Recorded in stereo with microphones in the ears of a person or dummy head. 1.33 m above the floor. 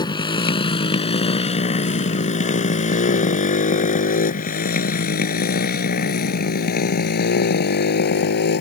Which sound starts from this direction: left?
A motorcycle, at 0.0 s.